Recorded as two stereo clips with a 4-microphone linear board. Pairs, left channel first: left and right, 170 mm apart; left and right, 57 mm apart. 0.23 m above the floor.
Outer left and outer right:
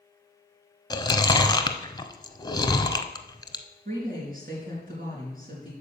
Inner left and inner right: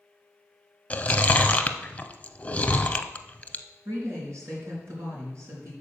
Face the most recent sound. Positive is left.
turn(degrees=-55)  # may be behind; listen again after turning